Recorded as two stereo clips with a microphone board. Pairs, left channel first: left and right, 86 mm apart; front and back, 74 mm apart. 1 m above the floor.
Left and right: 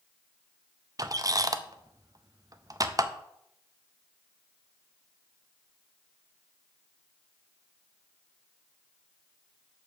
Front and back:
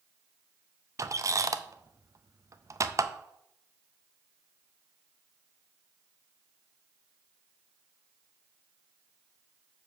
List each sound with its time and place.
1.0 s a squeak: 135° right, 0.6 m